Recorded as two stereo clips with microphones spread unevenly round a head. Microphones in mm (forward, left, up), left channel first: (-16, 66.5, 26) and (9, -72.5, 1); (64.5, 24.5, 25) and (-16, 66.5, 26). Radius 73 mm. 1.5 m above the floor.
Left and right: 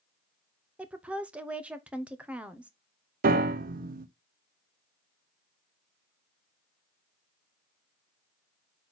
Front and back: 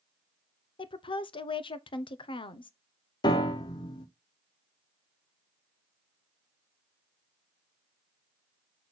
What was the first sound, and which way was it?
A woman speaking, straight ahead.